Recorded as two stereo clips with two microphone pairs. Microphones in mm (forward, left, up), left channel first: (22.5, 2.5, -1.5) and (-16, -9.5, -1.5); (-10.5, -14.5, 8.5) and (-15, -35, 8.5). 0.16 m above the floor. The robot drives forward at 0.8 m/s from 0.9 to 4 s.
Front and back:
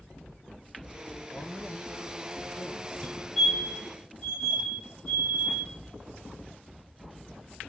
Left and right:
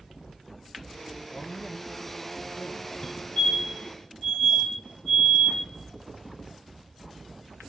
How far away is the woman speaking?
About 3.5 m.